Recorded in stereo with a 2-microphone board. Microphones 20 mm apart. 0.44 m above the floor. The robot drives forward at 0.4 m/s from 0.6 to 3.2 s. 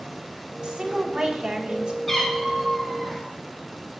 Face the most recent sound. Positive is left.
turn(degrees=15)  # may be behind; listen again after turning